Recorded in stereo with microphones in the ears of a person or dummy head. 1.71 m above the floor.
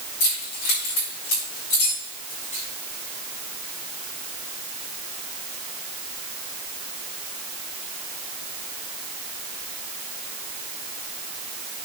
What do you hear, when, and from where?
0.2 s keys jangling: 55° left (ahead or behind), 5.5 m; by 2.6 s 40° left (ahead or behind), 5.5 m